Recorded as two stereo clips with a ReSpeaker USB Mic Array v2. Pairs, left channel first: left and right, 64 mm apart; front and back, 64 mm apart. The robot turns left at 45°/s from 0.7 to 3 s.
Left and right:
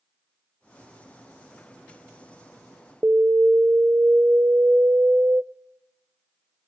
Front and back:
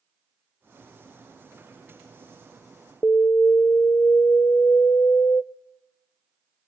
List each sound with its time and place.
3.0 s an alarm: 40° right, 0.6 m